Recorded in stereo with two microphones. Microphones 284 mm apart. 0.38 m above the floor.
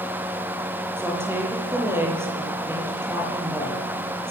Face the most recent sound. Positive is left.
turn(degrees=-10)  # may be behind; listen again after turning